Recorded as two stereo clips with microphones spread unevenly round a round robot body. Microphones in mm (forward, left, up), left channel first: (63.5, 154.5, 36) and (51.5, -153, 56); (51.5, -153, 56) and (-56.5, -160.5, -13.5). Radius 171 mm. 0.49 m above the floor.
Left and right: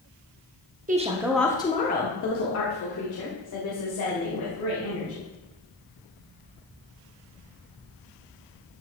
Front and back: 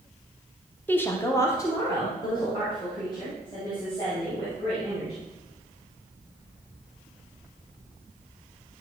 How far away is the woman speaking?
About 0.8 m.